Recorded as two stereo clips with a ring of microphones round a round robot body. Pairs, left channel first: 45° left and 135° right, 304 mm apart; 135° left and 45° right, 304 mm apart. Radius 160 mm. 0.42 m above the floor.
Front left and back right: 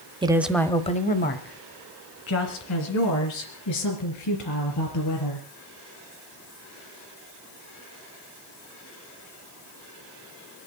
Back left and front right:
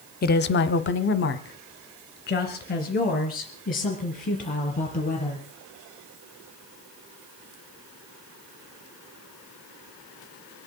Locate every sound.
0.2 s a woman speaking: 165° left, 1.0 m; by 5.5 s 70° left, 5 m